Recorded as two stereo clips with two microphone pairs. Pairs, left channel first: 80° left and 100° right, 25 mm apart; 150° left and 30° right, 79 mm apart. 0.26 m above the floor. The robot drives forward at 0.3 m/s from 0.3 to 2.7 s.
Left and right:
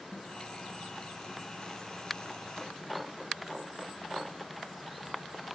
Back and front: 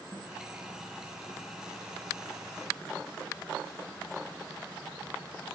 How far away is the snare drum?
About 6 m.